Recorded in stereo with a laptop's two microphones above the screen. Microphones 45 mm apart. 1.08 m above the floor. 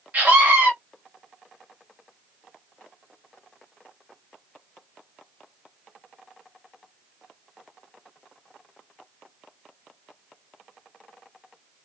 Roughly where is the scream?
Right.